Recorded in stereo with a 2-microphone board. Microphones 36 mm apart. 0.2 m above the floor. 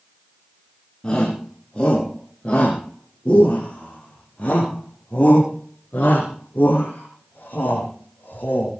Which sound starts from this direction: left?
A shout, at 1.0 s.